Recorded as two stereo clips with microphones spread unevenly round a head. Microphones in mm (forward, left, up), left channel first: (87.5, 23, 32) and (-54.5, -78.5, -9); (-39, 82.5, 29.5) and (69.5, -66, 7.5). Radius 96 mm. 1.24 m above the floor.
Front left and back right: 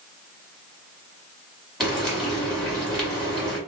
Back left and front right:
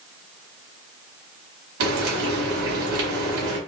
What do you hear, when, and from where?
1.8 s frying: 50° right, 1.8 m